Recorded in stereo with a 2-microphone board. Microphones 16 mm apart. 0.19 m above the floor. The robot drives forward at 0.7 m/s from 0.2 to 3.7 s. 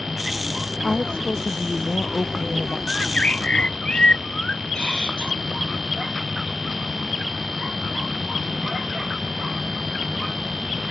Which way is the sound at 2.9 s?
75° left (ahead or behind).